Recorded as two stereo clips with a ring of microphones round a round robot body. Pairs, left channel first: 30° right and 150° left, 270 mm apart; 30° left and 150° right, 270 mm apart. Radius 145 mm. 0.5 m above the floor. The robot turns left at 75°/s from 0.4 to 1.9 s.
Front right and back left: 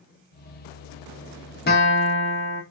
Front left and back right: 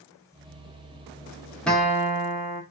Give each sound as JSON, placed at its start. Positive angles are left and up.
{"t": 1.7, "sound": "a guitar", "azimuth_deg": -55, "distance_m": 1.0}